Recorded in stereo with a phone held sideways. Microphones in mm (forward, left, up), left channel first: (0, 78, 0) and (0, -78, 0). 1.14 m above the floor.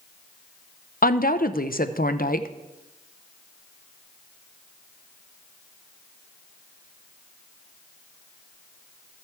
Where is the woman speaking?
60° left (ahead or behind), 0.6 m.